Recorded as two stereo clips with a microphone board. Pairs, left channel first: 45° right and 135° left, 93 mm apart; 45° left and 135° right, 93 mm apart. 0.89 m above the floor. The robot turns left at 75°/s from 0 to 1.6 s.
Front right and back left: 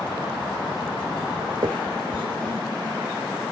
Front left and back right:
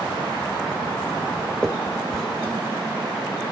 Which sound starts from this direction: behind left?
A finger snap, at 1.6 s.